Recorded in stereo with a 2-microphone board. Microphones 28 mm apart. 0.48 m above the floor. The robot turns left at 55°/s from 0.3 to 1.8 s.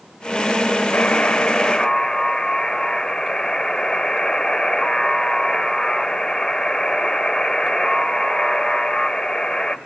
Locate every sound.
0.9 s a buzzer: 70° left, 1.1 m; by 9.8 s 20° left, 1.1 m